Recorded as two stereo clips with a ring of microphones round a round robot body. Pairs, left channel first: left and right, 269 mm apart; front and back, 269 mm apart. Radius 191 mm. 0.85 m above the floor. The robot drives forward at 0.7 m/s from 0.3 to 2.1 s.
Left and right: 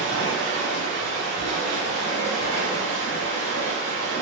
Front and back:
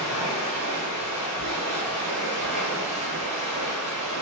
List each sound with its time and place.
0.0 s running water: 90° right, 1.6 m; by 4.2 s 130° right, 2.0 m